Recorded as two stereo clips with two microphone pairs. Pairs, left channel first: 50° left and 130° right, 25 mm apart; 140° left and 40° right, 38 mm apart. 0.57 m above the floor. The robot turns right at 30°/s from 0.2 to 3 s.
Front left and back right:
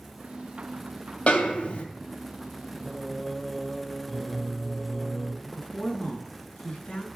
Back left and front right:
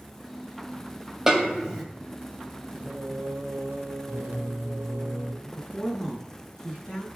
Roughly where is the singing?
Ahead right.